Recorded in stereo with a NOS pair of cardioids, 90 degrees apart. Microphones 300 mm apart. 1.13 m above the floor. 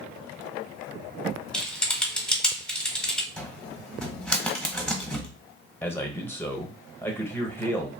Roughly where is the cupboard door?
Ahead.